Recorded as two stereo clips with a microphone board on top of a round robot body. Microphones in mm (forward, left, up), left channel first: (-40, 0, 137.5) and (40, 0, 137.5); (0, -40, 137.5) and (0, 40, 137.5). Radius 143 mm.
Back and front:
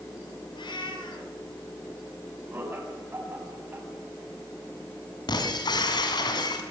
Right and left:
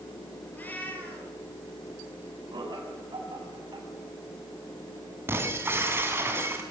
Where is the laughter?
65° left, 7 m.